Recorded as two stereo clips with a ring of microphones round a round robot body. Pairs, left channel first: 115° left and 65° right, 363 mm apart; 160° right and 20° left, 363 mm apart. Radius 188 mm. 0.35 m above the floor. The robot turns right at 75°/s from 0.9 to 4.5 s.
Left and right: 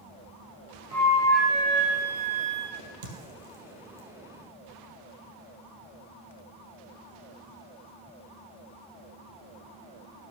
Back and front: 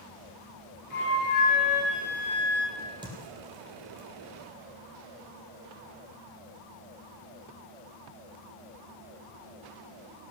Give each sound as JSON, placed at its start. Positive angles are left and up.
{"t": 0.9, "sound": "a flute", "azimuth_deg": 170, "distance_m": 3.0}
{"t": 2.8, "sound": "a crack", "azimuth_deg": -75, "distance_m": 3.0}